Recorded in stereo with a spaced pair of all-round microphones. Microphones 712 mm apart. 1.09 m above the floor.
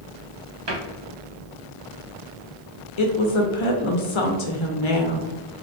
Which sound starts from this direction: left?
A woman speaking, at 3.0 s.